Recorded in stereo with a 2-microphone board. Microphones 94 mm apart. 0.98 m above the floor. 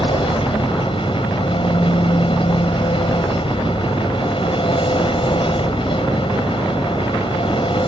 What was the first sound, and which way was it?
An engine running, 75° left (ahead or behind).